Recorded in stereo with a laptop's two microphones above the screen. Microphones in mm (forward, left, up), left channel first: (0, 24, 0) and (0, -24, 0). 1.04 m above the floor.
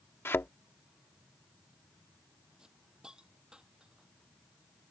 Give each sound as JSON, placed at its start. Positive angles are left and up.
{"t": 0.2, "sound": "a thud", "side_deg": 55}
{"t": 2.6, "sound": "a hiss", "side_deg": -15}